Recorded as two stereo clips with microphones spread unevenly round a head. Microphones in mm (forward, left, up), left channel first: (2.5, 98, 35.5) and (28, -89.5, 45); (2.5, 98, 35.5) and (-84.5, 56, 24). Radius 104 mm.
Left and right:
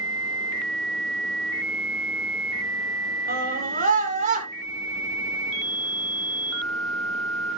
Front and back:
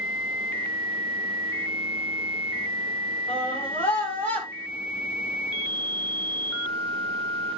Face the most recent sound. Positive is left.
turn(degrees=-30)